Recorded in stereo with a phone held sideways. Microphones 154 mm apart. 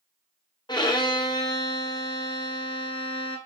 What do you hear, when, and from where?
0.7 s a violin: 25° left (ahead or behind), 0.8 m